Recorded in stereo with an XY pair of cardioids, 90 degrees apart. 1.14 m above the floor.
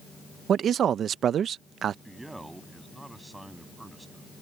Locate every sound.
0.5 s a man speaking: 70° right
2.0 s a man speaking: 15° right